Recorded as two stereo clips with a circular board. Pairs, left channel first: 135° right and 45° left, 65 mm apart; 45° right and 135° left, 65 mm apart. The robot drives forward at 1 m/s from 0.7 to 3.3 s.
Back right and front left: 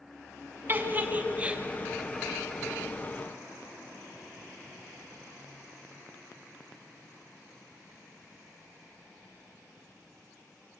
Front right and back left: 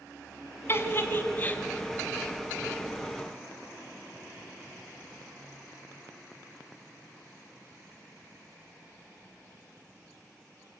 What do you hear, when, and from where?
0.7 s a giggle: 5° right, 1.9 m; by 1.6 s 10° right, 1.3 m